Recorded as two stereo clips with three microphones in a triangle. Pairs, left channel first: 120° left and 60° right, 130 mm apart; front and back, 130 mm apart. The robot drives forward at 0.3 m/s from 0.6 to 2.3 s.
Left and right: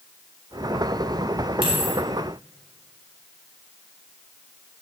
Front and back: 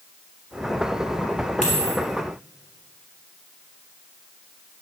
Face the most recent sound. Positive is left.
turn(degrees=-10)